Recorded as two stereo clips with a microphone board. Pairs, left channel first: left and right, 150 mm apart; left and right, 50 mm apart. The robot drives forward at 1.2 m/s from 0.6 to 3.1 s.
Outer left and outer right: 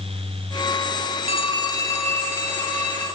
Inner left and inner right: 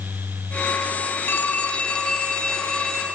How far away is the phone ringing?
About 0.8 m.